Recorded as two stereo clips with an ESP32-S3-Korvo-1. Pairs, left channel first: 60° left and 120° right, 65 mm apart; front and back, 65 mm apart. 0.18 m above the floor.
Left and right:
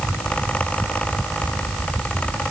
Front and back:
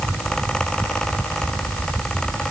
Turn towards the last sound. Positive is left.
No sound to turn to.